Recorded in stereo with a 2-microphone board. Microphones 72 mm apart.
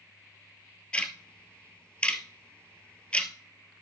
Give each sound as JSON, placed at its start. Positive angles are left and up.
{"t": 0.9, "sound": "ticking", "side_deg": 15, "distance_m": 1.5}